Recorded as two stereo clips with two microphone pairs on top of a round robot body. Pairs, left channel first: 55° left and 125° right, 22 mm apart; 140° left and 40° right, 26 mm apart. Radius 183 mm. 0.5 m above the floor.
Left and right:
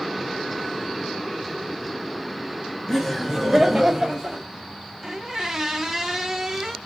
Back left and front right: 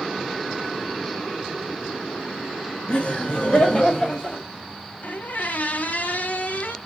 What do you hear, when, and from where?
2.9 s laughter: 140° left, 1.7 m; by 4.5 s 175° right, 2 m
5.0 s a squeak: 160° left, 0.6 m